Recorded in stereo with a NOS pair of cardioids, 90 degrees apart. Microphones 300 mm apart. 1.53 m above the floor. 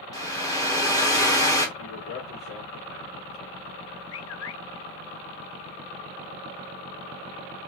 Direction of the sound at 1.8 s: 50° left.